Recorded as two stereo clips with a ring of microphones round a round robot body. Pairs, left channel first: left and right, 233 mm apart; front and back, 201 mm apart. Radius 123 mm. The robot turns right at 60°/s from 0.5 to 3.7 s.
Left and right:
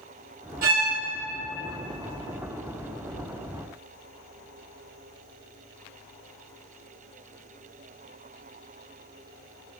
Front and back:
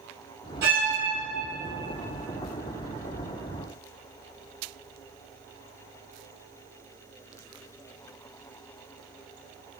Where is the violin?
140° right, 2.5 m; by 0.9 s 120° right, 2.5 m.